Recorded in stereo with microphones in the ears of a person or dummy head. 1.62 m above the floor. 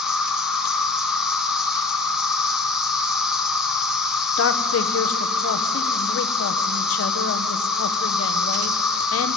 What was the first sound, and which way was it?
An insect, 5° right (ahead or behind).